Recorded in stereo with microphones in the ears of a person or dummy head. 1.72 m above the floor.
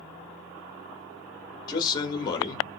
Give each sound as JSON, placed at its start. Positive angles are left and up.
{"t": 1.7, "sound": "a man speaking", "side_deg": 20, "distance_m": 0.9}